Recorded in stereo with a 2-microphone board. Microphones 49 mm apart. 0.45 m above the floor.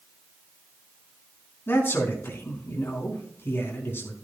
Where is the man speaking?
50° left (ahead or behind), 4 m.